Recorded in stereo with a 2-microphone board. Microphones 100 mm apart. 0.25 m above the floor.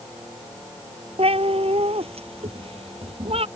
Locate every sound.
1.2 s a cat meowing: 80° right; by 3.5 s 75° right (ahead or behind)